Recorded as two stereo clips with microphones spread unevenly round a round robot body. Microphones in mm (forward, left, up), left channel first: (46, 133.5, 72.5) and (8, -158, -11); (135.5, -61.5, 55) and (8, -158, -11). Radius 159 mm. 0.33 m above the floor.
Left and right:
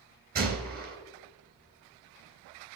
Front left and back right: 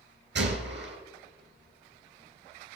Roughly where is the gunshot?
Behind.